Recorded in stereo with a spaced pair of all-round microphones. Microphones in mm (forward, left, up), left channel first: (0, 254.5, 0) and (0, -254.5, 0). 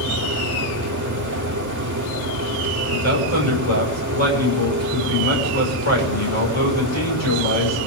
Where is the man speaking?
85° left, 6.5 m.